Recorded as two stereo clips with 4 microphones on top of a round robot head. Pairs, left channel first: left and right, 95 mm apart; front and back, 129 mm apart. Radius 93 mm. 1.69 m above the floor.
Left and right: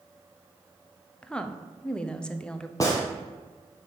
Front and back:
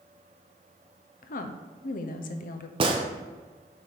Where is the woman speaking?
10° left, 0.7 m.